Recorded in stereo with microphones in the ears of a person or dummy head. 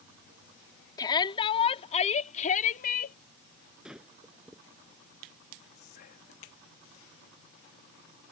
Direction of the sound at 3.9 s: 10° right (ahead or behind).